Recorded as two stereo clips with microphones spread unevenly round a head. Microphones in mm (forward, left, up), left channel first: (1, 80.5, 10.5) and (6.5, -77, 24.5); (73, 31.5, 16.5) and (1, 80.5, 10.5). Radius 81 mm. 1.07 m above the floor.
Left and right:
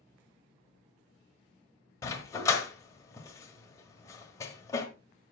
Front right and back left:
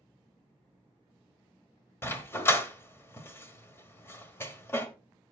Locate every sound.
2.0 s a dog barking: 20° left, 1.2 m